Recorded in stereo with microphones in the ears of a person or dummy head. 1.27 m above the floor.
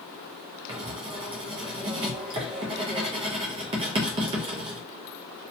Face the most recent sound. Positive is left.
turn(degrees=-25)  # may be behind; listen again after turning